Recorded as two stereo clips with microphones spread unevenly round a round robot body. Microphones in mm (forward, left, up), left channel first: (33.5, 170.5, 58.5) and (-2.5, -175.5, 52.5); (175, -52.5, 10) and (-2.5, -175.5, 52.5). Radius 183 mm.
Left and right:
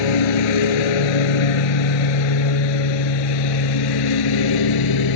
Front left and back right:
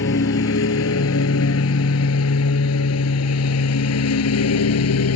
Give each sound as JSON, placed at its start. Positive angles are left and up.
{"t": 0.0, "sound": "a lawn mower", "azimuth_deg": 90}